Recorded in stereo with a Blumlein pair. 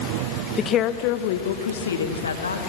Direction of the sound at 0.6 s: 20° left.